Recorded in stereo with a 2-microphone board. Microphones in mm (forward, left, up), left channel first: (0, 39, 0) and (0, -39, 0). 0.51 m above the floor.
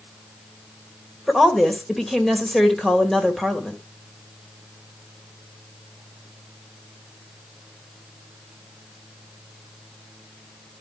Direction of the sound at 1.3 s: Centre (ahead or behind).